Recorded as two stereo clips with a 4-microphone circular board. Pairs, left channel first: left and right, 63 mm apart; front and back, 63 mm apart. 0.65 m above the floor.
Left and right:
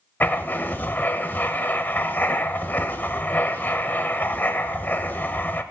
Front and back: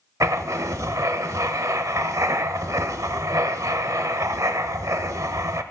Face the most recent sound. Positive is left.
turn(degrees=145)